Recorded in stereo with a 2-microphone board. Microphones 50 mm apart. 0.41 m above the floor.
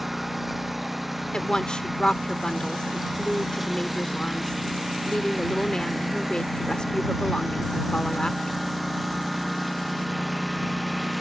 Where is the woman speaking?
20° left (ahead or behind).